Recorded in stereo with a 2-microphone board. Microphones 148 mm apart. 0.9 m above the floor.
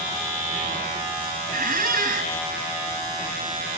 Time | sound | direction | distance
1.5 | a squeak | 65° right (ahead or behind) | 2.5 m